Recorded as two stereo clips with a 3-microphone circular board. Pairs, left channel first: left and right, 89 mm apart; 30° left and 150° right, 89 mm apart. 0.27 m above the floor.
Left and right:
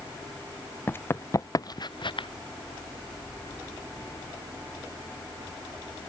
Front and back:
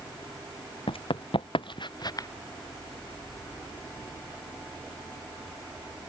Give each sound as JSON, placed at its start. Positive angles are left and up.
{"t": 0.9, "sound": "running footsteps", "azimuth_deg": 25}